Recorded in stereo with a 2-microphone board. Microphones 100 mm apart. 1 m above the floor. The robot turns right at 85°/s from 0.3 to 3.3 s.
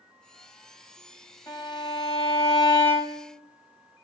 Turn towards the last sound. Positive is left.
turn(degrees=-165)